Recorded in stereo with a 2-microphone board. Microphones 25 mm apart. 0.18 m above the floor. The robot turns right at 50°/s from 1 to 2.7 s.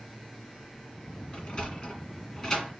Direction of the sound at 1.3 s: 45° left (ahead or behind).